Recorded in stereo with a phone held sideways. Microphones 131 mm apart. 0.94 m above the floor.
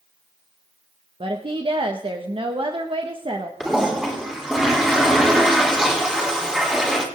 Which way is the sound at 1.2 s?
40° right (ahead or behind).